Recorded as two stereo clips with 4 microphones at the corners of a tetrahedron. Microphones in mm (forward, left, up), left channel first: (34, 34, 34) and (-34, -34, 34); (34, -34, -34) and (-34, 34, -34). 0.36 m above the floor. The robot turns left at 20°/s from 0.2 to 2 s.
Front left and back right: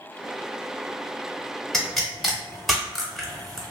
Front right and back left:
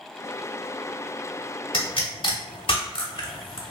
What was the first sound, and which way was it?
A pop, 40° right.